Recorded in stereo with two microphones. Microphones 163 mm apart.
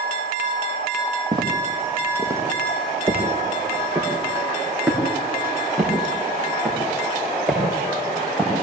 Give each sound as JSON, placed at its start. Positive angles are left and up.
{"t": 1.3, "sound": "footsteps", "side_deg": -30, "distance_m": 2.5}